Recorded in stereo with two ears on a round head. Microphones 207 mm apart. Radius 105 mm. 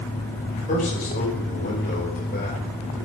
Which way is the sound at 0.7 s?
30° left (ahead or behind).